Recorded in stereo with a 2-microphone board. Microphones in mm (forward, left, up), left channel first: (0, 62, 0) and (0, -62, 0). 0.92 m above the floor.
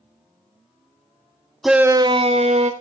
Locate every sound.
1.6 s a shout: centre (ahead or behind), 0.8 m; by 2.7 s 65° right (ahead or behind), 1.3 m